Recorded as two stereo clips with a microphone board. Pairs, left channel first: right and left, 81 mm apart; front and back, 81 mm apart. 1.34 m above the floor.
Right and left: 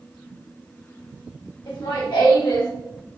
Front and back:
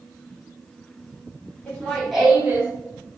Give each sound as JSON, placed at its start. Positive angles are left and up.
{"t": 1.7, "sound": "laughter", "azimuth_deg": -75, "distance_m": 1.9}